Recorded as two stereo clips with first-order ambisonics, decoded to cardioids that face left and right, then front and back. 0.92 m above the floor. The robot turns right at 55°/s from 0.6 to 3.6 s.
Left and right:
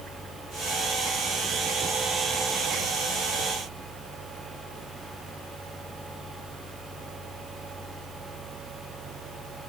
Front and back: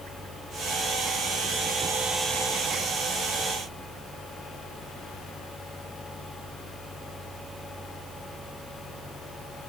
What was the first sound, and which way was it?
Only background noise.